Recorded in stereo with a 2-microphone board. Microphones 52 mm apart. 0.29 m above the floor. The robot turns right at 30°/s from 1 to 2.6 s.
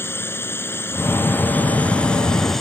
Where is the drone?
125° left; by 2.6 s 175° left.